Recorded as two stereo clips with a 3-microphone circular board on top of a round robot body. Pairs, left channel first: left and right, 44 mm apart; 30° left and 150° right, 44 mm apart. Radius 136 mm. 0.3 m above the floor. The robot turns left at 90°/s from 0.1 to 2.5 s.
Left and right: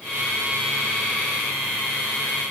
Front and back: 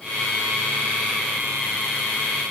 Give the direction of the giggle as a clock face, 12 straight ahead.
No giggle in this recording.